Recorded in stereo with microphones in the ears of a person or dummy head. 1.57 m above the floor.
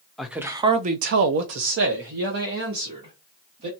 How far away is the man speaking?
About 0.7 m.